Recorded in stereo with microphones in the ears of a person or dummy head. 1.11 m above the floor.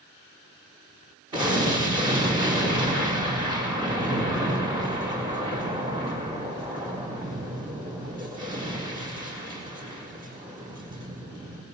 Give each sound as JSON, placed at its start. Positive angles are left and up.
{"t": 1.3, "sound": "an explosion", "side_deg": -20, "distance_m": 4.0}